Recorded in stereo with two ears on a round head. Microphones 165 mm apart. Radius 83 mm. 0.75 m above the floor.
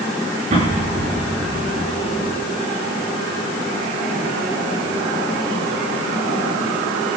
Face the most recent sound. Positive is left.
turn(degrees=-35)  # may be behind; listen again after turning